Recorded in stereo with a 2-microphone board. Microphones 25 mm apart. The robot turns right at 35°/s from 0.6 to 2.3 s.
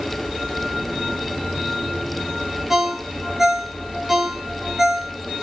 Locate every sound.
2.7 s a ringtone: 15° right (ahead or behind), 0.7 m